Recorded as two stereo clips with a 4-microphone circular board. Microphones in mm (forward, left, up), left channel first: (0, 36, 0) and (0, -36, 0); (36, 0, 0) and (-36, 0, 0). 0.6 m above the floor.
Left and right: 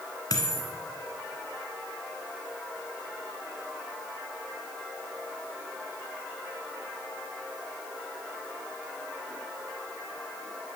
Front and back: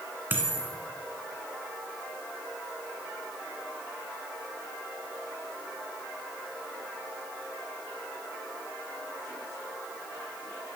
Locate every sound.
0.3 s a dropped coin: 120° left, 1.8 m